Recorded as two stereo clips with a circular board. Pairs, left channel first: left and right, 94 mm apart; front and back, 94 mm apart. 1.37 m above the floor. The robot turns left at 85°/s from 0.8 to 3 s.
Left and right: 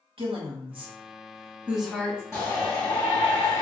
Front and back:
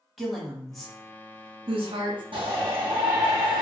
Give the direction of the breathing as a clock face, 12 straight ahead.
I don't hear breathing.